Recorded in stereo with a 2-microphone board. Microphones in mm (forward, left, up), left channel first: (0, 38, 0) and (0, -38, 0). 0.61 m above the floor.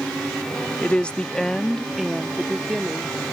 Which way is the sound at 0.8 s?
15° left (ahead or behind).